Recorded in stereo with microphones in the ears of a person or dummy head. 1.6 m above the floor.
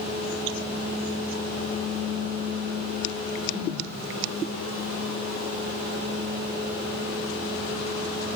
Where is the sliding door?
I don't hear a sliding door.